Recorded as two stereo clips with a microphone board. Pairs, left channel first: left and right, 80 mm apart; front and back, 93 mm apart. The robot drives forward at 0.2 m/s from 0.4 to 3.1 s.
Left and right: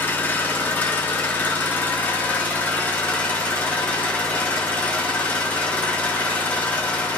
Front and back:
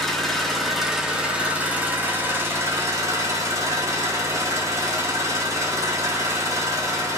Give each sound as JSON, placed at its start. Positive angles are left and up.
{"t": 0.0, "sound": "an engine running", "azimuth_deg": 80, "distance_m": 0.7}